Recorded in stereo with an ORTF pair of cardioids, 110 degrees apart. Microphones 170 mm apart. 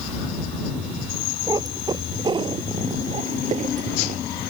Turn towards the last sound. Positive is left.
turn(degrees=-50)